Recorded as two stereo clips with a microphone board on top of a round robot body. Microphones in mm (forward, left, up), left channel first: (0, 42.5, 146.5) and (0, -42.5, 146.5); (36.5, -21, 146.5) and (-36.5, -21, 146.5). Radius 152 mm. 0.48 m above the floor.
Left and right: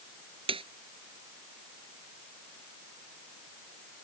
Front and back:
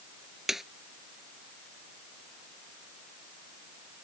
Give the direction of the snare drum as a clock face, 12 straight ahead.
3 o'clock.